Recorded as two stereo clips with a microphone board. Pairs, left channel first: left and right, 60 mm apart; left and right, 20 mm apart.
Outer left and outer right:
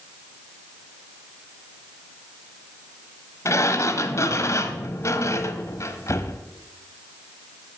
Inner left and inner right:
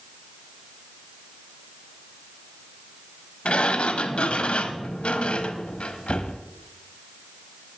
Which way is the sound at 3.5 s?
60° left (ahead or behind).